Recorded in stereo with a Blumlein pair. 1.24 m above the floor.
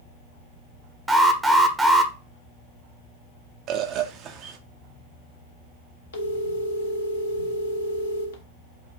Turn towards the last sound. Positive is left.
turn(degrees=65)